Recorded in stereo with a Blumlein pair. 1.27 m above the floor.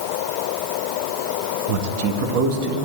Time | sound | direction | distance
1.7 | a man speaking | 45° right | 1.3 m